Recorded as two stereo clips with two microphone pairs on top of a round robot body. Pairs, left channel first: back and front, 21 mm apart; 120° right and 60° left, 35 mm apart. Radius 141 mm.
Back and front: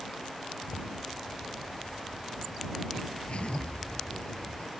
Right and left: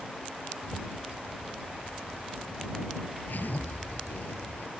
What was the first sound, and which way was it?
A zipper, 150° right.